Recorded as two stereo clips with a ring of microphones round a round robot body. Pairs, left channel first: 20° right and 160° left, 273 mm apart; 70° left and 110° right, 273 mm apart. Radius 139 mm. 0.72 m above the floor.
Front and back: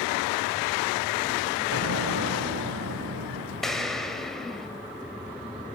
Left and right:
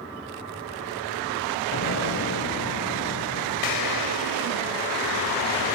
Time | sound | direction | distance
1.7 | an explosion | 115° left | 2.5 m
3.6 | an explosion | 65° left | 3 m